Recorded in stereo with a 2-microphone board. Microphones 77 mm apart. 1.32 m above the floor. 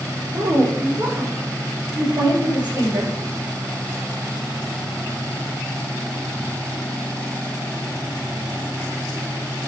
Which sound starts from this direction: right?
A woman speaking, at 0.3 s.